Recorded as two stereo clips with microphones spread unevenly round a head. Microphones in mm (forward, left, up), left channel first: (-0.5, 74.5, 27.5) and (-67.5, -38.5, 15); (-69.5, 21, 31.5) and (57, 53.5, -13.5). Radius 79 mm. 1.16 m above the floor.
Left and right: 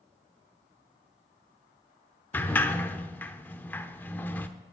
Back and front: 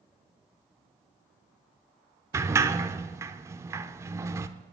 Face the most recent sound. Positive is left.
turn(degrees=100)